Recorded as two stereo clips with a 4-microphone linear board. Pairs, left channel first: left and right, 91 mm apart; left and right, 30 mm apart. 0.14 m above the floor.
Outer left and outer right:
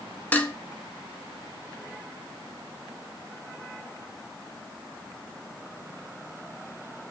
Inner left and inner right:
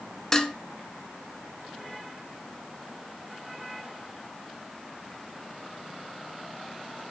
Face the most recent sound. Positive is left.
turn(degrees=20)  # may be behind; listen again after turning